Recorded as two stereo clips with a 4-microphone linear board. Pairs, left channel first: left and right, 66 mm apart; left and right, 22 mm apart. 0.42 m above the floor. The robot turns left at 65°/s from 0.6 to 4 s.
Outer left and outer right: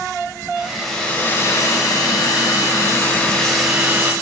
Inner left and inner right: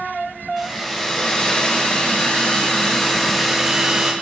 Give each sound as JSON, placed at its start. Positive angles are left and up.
{"t": 0.6, "sound": "a hair dryer", "azimuth_deg": -165, "distance_m": 0.6}